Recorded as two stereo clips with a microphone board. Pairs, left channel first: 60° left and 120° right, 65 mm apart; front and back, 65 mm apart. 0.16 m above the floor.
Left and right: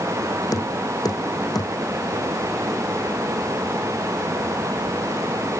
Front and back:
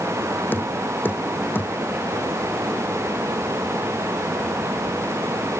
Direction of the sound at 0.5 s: 60° left.